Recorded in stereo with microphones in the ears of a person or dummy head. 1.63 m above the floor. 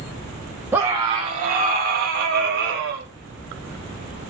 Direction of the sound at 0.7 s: 10° right (ahead or behind).